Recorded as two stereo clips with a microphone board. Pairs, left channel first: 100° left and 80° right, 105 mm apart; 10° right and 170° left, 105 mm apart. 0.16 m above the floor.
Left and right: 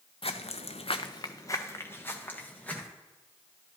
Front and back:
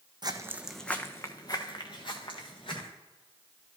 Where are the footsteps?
125° left, 0.7 m; by 2.9 s 25° left, 2.5 m.